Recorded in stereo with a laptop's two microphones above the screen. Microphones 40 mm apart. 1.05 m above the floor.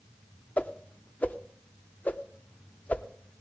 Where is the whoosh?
45° left (ahead or behind), 0.7 m.